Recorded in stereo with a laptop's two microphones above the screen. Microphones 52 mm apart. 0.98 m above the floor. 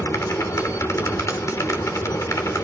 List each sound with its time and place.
0.0 s a machine running: 90° left, 2 m